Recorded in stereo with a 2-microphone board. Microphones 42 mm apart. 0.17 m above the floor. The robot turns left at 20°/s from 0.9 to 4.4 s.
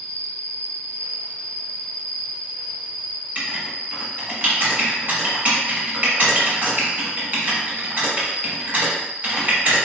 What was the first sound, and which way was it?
An insect, 35° left.